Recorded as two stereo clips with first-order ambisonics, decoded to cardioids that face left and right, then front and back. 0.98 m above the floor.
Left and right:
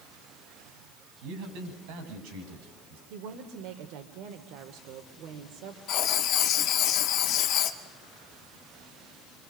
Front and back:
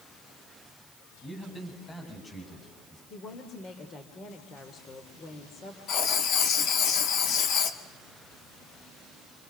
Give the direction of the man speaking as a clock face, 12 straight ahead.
3 o'clock.